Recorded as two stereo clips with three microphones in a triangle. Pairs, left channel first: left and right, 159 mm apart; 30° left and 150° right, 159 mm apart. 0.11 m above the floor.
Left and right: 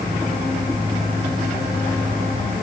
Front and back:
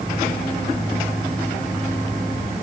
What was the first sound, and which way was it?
Only background noise.